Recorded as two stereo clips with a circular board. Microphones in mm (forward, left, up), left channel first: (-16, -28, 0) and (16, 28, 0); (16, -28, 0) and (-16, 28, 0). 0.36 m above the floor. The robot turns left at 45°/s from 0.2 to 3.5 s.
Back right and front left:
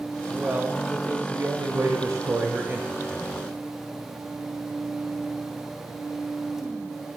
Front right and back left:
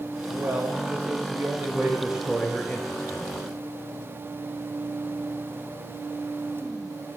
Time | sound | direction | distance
0.3 | a man speaking | 125° left | 1.1 m